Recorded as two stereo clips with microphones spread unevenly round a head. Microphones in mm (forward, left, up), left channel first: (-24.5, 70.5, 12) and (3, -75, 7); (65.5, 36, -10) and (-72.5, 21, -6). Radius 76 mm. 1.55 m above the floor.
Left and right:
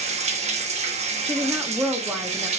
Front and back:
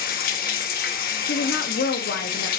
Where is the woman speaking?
Straight ahead, 1.0 m.